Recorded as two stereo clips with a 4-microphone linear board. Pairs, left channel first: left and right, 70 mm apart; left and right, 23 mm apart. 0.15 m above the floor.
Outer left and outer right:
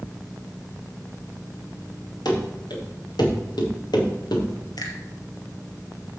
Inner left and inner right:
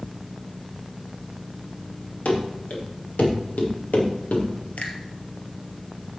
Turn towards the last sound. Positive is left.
turn(degrees=70)  # may be behind; listen again after turning